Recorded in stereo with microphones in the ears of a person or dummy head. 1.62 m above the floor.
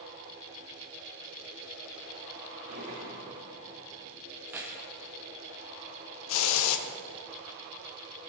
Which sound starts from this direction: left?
A hiss, at 6.3 s.